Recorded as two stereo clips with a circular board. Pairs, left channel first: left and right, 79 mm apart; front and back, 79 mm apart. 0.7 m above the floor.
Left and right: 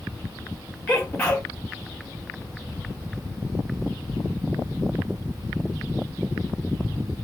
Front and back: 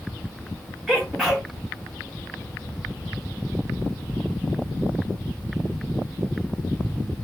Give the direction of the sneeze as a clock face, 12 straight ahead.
9 o'clock.